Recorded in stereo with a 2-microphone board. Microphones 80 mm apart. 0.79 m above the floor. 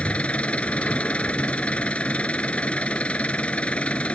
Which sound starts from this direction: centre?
An engine running, at 0.0 s.